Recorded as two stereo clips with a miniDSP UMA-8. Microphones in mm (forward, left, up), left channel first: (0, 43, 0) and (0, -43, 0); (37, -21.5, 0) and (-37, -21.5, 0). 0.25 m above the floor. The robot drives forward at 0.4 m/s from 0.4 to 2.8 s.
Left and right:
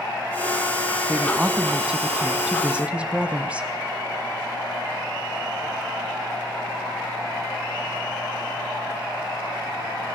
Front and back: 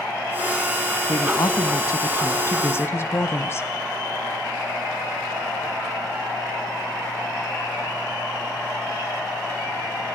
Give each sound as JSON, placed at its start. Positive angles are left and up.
{"t": 1.1, "sound": "a woman speaking", "azimuth_deg": -10, "distance_m": 1.6}